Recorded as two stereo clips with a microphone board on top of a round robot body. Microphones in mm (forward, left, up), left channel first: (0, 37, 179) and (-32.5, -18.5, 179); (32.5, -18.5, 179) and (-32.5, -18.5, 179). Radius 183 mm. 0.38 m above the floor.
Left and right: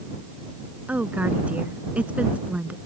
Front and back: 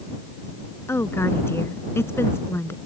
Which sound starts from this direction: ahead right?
A woman speaking, at 0.9 s.